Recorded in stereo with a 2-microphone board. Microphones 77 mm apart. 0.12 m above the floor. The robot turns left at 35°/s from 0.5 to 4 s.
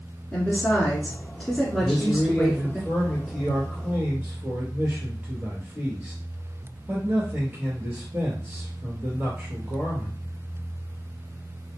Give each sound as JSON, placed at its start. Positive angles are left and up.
{"t": 0.3, "sound": "a woman speaking", "side_deg": 15, "distance_m": 1.7}
{"t": 1.8, "sound": "a man speaking", "azimuth_deg": 45, "distance_m": 2.0}